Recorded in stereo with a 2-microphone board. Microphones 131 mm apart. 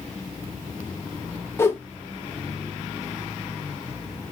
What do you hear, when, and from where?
1.6 s a whoosh: 20° left (ahead or behind), 0.6 m